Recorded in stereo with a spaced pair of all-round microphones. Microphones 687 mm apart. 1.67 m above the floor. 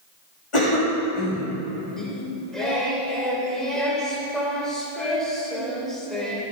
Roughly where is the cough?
Left.